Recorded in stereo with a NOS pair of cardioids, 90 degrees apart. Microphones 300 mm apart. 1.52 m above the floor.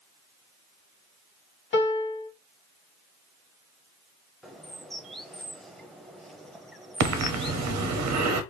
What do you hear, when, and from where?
1.7 s a piano: 40° left, 1.3 m
4.4 s a bird: straight ahead, 0.6 m
7.0 s breathing: 70° right, 0.7 m